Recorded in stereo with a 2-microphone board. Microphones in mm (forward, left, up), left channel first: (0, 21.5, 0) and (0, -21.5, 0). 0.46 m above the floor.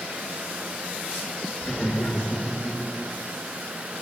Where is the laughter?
45° left (ahead or behind), 4 m; by 2.8 s 40° left (ahead or behind), 5 m.